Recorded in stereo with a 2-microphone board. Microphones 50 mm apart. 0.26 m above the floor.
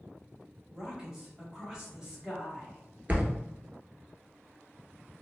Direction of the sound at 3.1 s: 35° right (ahead or behind).